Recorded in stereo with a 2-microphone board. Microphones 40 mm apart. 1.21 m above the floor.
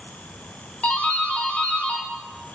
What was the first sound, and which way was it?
A doorbell, 40° left (ahead or behind).